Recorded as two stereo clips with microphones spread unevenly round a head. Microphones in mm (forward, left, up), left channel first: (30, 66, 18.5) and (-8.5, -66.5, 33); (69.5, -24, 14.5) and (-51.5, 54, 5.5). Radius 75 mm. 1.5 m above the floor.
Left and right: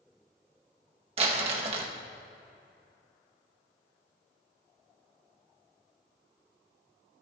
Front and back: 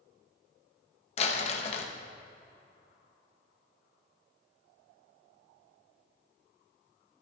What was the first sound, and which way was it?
Crumpling, 70° right.